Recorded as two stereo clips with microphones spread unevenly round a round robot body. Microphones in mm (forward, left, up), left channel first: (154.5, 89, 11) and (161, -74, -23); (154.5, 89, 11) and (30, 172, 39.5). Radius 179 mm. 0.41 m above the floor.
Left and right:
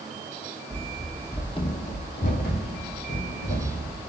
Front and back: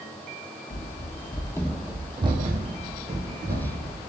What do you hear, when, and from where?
0.7 s running footsteps: 5° right, 0.9 m; by 4.0 s 125° left, 1.9 m